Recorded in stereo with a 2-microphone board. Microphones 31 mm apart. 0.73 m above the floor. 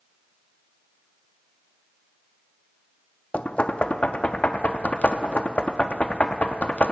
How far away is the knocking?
About 0.7 m.